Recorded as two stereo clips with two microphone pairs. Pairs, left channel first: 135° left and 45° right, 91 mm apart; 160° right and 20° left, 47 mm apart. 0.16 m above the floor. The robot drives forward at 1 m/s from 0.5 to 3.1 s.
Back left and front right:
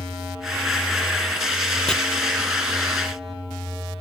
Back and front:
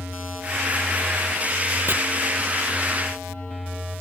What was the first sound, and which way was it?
Chopping, 55° left.